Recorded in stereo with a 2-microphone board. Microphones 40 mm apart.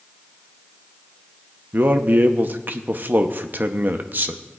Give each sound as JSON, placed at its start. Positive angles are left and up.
{"t": 1.7, "sound": "a man speaking", "side_deg": -50, "distance_m": 0.7}